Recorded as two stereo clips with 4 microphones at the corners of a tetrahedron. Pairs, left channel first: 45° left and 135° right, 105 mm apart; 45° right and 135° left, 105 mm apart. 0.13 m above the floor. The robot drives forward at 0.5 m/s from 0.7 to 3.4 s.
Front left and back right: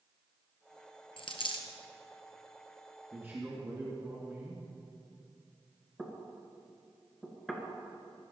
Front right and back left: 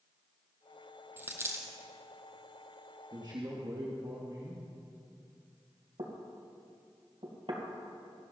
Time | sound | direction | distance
1.2 | a dropped coin | 65° left | 1.5 m
3.1 | a man speaking | 160° left | 2.5 m
6.0 | knocking | 130° left | 2 m